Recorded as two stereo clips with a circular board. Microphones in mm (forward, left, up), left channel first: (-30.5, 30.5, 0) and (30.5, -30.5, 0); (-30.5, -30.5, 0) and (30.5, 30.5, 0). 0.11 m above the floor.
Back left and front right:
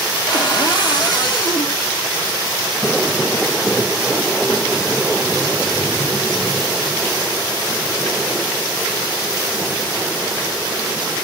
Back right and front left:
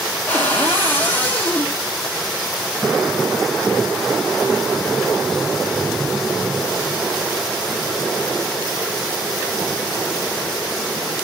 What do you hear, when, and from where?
0.3 s a cupboard door: 155° left, 1.7 m